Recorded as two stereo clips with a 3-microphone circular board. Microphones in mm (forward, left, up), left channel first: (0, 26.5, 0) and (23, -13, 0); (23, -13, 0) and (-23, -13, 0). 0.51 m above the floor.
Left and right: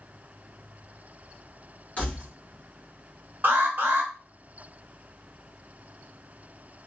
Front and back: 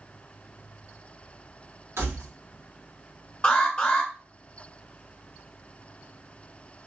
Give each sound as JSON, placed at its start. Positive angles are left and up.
{"t": 2.0, "sound": "keys jangling", "azimuth_deg": 180, "distance_m": 2.5}
{"t": 3.4, "sound": "an alarm", "azimuth_deg": -55, "distance_m": 1.3}